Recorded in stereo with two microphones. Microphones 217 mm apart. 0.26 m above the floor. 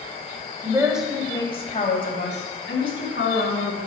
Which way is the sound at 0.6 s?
20° right (ahead or behind).